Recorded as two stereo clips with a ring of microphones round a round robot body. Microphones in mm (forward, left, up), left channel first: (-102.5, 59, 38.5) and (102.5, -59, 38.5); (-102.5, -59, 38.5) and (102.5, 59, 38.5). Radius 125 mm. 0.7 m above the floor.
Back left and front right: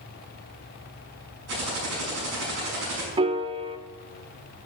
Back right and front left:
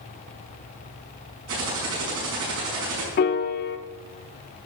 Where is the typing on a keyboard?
5° right, 6 m.